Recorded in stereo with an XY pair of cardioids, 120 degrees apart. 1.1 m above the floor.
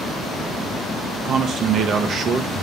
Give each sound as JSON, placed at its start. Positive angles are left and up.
{"t": 1.2, "sound": "a man speaking", "azimuth_deg": -55, "distance_m": 0.9}